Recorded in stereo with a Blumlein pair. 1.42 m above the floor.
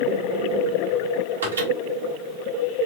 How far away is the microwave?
About 1.6 m.